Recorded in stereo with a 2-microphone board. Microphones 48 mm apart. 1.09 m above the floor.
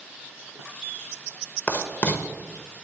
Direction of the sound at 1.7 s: 35° left (ahead or behind).